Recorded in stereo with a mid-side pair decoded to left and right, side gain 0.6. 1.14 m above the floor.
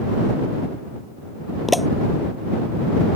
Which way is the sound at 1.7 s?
5° left.